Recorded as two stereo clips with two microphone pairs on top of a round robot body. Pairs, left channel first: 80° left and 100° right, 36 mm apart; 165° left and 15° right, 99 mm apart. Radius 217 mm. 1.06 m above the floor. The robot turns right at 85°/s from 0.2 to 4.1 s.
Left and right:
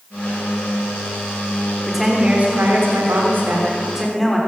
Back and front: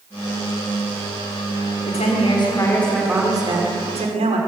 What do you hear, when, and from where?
1.9 s a woman speaking: 165° left, 4 m; by 4.4 s 5° right, 4 m